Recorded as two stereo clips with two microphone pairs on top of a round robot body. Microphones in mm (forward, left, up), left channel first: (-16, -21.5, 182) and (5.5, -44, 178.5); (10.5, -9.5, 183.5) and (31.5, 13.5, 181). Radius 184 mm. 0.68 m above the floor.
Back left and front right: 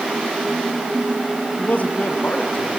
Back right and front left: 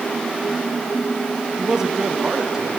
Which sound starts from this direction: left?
A man speaking, at 1.6 s.